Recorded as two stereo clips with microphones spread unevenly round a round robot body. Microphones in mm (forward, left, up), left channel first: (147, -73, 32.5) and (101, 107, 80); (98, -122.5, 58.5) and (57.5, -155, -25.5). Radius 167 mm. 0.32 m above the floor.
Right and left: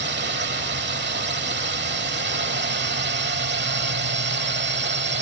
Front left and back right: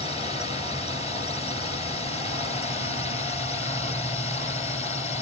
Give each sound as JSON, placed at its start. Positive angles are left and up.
{"t": 0.0, "sound": "a drone", "azimuth_deg": 100}